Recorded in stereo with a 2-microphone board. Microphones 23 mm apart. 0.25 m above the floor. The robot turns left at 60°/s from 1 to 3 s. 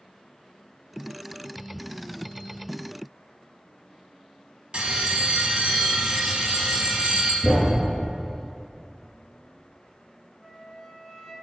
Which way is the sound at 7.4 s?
15° right (ahead or behind).